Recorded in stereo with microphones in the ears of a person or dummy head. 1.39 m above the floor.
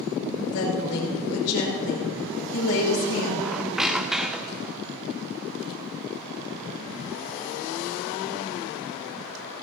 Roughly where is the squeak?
Centre.